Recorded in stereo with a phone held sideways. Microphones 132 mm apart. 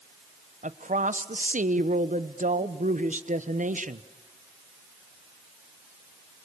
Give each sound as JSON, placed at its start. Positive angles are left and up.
{"t": 0.6, "sound": "a woman speaking", "side_deg": -70, "distance_m": 1.1}